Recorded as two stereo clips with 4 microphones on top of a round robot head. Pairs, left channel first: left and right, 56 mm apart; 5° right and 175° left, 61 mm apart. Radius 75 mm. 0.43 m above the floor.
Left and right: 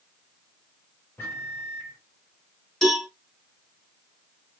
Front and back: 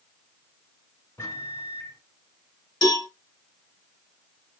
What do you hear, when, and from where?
1.2 s a microwave: 35° left, 2.5 m
2.8 s a cowbell: 10° left, 2.5 m